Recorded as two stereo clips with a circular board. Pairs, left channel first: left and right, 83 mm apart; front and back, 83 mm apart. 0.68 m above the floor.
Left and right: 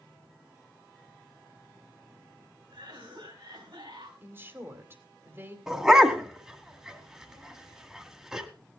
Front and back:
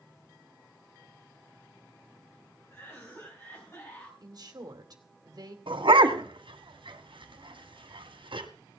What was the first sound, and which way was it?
A cough, 60° right.